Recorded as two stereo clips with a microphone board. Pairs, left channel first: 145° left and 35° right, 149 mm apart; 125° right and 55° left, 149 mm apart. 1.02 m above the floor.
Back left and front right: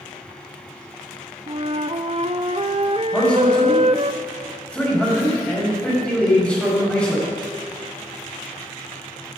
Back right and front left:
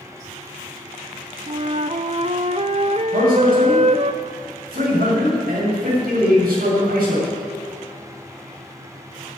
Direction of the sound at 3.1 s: 65° left.